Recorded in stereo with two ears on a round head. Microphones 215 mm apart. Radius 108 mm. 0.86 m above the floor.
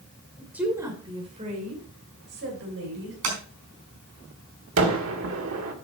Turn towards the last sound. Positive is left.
turn(degrees=-60)  # may be behind; listen again after turning